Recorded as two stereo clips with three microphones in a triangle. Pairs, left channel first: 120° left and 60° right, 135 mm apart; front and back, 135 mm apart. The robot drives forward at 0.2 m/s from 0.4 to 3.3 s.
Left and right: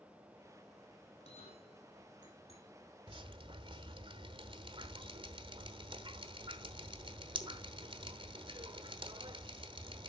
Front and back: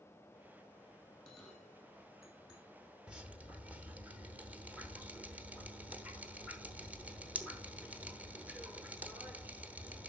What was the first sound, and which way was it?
A bell, 85° left.